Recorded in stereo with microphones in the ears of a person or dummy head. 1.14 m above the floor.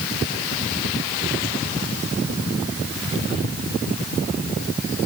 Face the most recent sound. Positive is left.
No sound to turn to.